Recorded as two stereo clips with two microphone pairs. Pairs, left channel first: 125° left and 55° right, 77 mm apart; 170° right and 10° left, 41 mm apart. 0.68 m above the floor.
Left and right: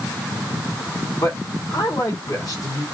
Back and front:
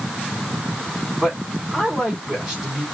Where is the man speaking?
95° left, 2 m.